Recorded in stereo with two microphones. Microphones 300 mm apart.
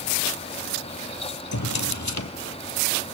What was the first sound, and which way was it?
A drawer, 65° left (ahead or behind).